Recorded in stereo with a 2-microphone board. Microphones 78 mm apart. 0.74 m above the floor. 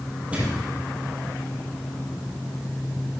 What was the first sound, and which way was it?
A thud, 20° right (ahead or behind).